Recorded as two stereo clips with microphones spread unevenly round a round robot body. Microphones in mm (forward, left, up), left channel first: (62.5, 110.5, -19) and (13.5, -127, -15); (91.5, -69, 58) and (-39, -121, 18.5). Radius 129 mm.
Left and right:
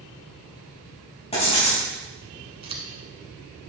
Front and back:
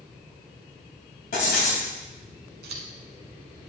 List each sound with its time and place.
1.3 s writing: 15° left, 3.5 m
2.6 s scissors: 170° right, 1.2 m